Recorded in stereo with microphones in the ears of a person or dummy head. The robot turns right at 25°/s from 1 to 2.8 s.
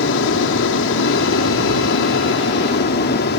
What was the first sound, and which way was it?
An aircraft, 75° left.